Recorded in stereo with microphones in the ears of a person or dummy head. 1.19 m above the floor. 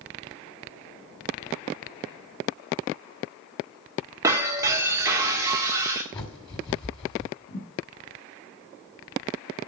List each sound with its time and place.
4.2 s breaking glass: 20° right (ahead or behind), 1.7 m
6.1 s a bird: 25° left (ahead or behind), 1.8 m
7.5 s a thud: 80° left, 3.5 m